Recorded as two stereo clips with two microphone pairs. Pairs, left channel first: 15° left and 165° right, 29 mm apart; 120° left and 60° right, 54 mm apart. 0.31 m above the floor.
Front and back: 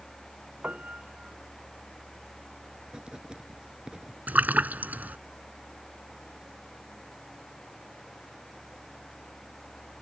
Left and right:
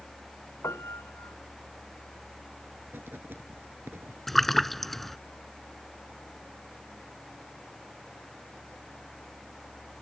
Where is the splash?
155° right.